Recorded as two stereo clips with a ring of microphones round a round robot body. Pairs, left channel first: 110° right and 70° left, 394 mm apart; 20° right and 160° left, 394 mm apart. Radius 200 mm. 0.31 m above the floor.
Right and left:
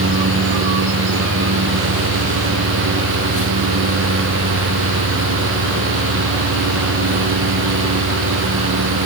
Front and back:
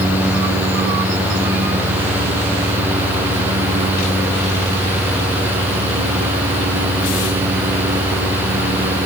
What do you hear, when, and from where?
Only background noise.